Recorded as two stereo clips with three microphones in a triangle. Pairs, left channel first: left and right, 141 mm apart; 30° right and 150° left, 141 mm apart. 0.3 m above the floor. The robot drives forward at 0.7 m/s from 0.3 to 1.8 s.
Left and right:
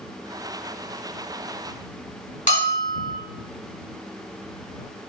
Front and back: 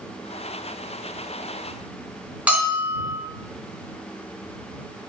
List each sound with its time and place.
2.5 s a bell: 70° left, 1.9 m